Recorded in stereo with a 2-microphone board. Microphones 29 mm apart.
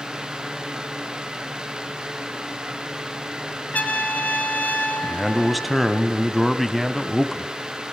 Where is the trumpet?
65° left (ahead or behind), 2 m.